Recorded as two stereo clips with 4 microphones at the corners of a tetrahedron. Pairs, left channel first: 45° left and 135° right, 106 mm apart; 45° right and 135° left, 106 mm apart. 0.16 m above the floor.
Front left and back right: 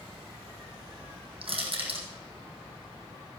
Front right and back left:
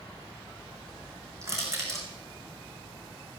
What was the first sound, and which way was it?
Crushing, 165° right.